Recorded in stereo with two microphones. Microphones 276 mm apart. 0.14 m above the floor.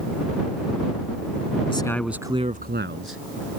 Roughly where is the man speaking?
Centre.